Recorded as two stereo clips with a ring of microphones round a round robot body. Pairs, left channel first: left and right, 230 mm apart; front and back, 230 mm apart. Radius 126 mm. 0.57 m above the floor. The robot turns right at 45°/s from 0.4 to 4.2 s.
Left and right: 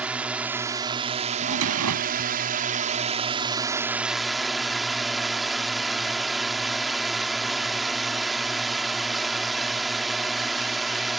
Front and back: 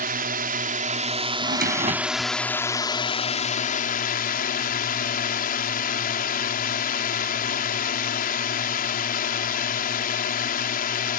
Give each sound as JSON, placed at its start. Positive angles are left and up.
{"t": 0.0, "sound": "a drone", "azimuth_deg": -170}
{"t": 1.4, "sound": "a drawer", "azimuth_deg": -140}